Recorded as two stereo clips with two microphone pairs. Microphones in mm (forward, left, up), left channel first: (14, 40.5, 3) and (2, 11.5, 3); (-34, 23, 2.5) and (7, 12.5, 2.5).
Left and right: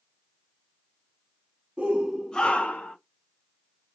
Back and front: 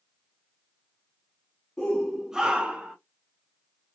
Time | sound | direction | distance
1.8 | a shout | 130° right | 0.7 m